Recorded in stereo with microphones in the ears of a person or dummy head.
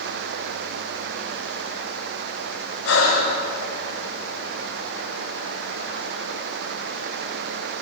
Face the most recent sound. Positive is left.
turn(degrees=85)